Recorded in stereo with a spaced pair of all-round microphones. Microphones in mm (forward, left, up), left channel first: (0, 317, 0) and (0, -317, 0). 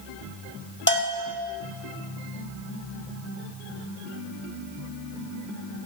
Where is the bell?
15° left (ahead or behind), 1.3 m.